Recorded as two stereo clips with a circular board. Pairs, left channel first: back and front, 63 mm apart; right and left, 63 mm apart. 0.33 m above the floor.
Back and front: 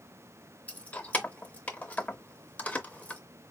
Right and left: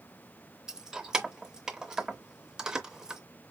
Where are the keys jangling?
155° left, 0.6 m.